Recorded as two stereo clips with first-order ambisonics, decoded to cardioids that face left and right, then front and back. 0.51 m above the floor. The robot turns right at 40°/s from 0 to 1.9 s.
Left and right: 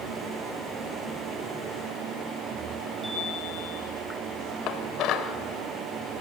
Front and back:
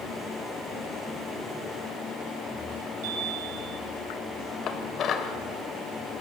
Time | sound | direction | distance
3.0 | a chime | 175° right | 5.5 m
4.7 | dishes clattering | 50° left | 1.5 m